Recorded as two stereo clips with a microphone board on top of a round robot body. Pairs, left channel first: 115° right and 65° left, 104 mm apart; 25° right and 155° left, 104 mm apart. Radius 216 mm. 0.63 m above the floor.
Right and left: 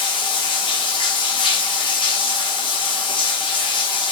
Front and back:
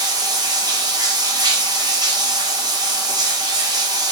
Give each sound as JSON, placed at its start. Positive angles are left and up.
{"t": 0.0, "sound": "running water", "azimuth_deg": -150, "distance_m": 1.1}